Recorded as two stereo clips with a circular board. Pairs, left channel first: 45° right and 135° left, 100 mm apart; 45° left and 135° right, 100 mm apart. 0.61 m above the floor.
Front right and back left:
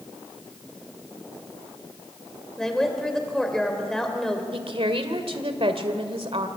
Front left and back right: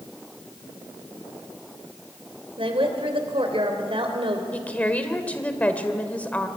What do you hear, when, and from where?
2.6 s a woman speaking: 130° right, 3 m
4.5 s a woman speaking: 120° left, 1.8 m